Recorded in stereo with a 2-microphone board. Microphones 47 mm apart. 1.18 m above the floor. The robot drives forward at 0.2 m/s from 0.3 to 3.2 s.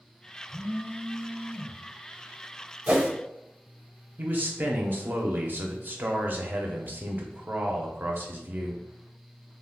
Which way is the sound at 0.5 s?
20° left (ahead or behind).